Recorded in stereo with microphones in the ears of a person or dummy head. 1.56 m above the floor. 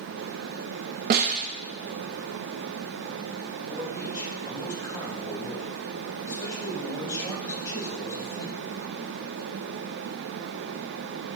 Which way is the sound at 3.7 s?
15° left (ahead or behind).